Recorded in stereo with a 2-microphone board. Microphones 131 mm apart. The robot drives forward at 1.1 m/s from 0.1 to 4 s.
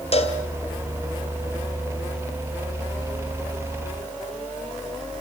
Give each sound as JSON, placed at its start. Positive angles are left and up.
{"t": 0.1, "sound": "a cowbell", "side_deg": 50, "distance_m": 2.0}